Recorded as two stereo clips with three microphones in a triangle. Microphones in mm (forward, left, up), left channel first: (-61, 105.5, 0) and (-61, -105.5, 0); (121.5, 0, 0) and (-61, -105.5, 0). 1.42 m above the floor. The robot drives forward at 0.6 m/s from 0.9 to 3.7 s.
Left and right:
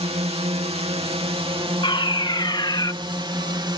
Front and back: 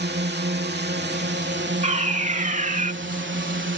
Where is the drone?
145° right; by 3.8 s 155° right.